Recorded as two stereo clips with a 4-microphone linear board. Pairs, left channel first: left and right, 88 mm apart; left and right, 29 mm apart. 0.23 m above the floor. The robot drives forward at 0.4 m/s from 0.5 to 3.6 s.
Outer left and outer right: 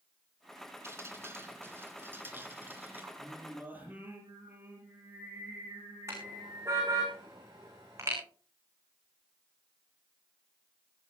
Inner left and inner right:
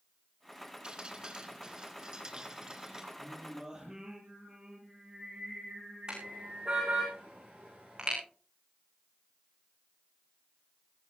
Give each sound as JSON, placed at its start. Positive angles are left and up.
{"t": 0.8, "sound": "dripping", "side_deg": -30, "distance_m": 2.5}
{"t": 3.2, "sound": "singing", "side_deg": -20, "distance_m": 7.5}
{"t": 6.1, "sound": "a car horn", "side_deg": -35, "distance_m": 8.5}